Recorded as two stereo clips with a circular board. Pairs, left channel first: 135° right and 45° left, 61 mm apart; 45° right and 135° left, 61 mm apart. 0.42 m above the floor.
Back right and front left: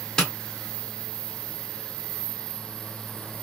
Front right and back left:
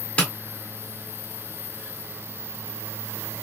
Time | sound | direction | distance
0.2 | tapping | 75° right | 1.4 m